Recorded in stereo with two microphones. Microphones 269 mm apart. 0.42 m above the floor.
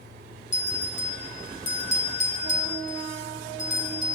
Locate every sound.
0.5 s a bell: 25° left (ahead or behind), 1.3 m